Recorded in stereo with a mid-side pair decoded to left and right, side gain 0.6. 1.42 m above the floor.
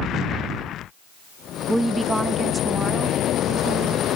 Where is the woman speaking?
5° right; by 4.1 s 30° right.